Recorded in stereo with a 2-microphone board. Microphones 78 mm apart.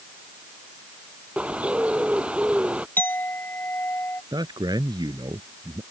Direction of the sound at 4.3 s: 65° right (ahead or behind).